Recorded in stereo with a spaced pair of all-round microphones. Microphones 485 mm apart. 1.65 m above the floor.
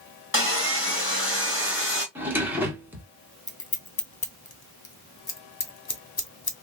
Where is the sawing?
25° left (ahead or behind), 1.6 m.